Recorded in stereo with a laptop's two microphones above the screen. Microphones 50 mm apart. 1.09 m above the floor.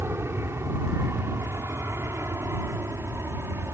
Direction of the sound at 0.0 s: 60° right (ahead or behind).